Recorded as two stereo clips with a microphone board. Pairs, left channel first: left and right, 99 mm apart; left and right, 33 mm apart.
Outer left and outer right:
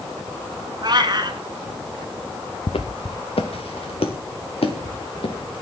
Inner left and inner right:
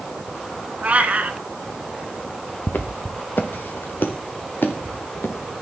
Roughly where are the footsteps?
Left.